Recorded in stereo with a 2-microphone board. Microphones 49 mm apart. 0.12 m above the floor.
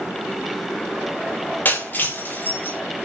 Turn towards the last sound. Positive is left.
turn(degrees=40)  # may be behind; listen again after turning